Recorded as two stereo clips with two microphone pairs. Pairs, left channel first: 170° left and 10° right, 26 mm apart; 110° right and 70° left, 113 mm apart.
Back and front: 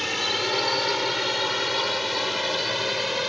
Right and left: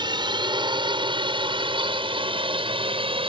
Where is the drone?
85° left; by 3.3 s 75° left.